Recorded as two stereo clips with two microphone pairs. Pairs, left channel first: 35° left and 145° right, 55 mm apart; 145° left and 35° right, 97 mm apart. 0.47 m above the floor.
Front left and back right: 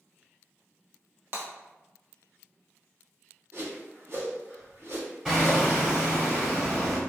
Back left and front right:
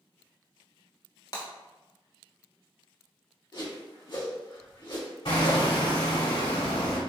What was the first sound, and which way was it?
Breaking glass, 175° left.